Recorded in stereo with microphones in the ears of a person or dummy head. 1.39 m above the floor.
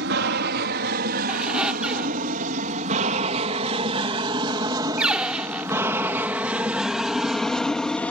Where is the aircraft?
55° right (ahead or behind); by 8.1 s 10° left (ahead or behind).